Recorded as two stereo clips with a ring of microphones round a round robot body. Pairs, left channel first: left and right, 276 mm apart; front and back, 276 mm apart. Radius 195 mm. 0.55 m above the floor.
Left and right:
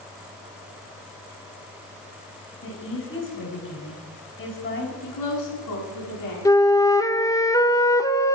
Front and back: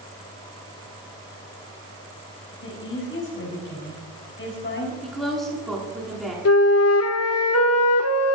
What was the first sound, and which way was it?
A woman speaking, 45° left.